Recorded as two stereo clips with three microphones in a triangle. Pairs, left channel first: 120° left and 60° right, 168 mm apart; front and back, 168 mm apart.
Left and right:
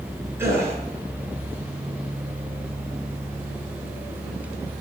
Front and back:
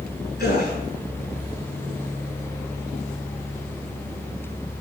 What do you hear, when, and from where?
0.4 s a gasp: 15° left, 4.5 m